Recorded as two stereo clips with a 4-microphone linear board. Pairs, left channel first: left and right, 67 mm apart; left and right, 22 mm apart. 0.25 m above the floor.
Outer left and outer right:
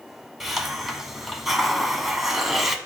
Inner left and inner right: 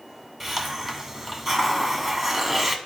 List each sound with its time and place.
0.4 s a hiss: 5° right (ahead or behind), 0.9 m